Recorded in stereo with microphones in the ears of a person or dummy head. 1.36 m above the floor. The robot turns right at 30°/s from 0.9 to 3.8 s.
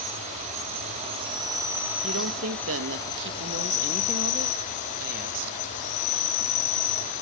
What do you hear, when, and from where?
0.0 s an insect: 40° right, 8.5 m; by 7.2 s 45° left, 8.5 m
2.0 s a woman speaking: 110° right, 1.8 m; by 5.6 s 55° right, 1.8 m